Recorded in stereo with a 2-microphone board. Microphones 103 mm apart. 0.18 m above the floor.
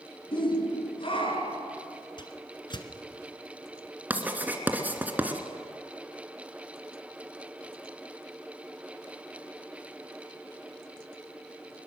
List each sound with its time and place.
0.3 s a shout: 55° left (ahead or behind), 2.5 m; by 1.7 s 60° left (ahead or behind), 3.5 m
2.2 s a whoosh: 50° left (ahead or behind), 1.7 m
4.1 s writing: 15° right (ahead or behind), 1.7 m